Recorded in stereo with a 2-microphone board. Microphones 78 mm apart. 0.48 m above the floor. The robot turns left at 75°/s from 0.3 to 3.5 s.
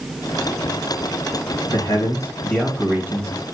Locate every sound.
1.7 s a man speaking: 75° left, 2.5 m; by 3.3 s 50° right, 2.5 m